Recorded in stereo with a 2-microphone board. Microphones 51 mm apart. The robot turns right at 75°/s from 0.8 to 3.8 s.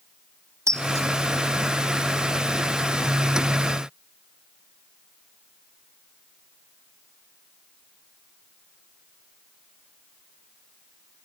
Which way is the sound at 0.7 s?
70° right (ahead or behind).